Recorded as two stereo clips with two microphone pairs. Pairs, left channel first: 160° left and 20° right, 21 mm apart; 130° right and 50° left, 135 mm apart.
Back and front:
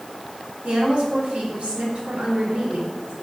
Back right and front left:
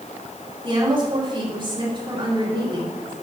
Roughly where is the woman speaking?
Ahead.